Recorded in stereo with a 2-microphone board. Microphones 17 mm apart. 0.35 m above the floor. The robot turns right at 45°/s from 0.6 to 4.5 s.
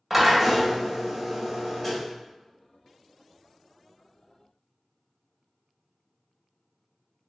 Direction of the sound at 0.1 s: Centre (ahead or behind).